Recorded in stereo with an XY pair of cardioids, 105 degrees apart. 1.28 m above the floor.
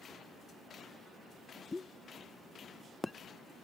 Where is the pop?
20° left.